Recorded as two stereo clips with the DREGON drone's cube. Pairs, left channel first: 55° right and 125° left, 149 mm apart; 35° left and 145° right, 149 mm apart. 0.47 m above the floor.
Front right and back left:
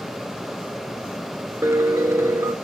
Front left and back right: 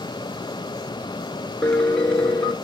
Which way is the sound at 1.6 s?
105° left.